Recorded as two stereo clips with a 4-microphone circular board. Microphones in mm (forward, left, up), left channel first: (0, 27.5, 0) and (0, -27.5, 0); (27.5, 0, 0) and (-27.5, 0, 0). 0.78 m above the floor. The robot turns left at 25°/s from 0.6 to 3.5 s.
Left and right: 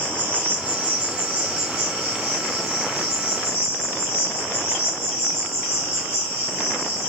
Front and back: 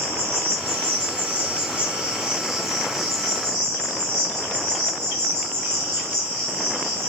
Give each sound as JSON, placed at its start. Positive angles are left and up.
{"t": 0.0, "sound": "an insect", "azimuth_deg": 145, "distance_m": 1.4}